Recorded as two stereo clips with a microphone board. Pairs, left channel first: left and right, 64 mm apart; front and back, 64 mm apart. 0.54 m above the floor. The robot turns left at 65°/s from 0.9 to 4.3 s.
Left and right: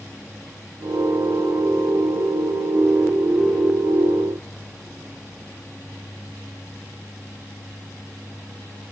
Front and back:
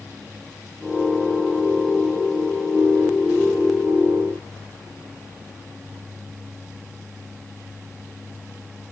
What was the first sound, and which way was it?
Only background noise.